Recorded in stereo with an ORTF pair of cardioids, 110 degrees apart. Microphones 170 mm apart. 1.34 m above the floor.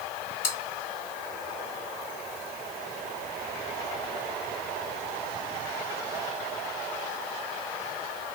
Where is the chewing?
55° left, 1.7 m.